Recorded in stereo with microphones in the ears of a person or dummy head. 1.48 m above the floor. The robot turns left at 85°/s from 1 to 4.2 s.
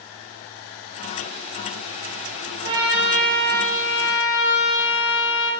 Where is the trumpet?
140° right, 1.1 m; by 5.5 s 85° left, 1.1 m.